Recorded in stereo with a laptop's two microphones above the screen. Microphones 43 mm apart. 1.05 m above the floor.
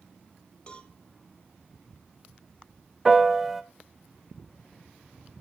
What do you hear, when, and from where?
0.7 s a cowbell: 25° left (ahead or behind), 2 m
3.0 s a piano: 5° right (ahead or behind), 0.6 m